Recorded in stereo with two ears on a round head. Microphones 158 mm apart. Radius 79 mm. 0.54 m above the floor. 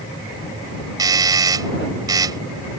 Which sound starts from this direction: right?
A doorbell, at 1.0 s.